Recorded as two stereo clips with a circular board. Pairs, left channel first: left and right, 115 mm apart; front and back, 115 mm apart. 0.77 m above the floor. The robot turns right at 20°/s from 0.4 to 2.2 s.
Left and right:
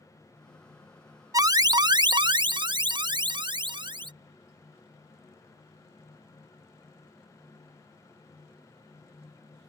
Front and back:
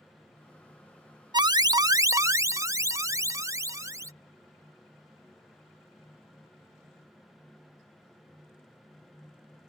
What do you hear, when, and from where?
1.3 s an alarm: 140° right; by 4.1 s 125° right